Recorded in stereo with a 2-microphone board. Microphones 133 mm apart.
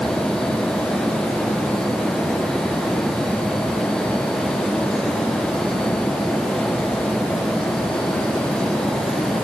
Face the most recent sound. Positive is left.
No sound to turn to.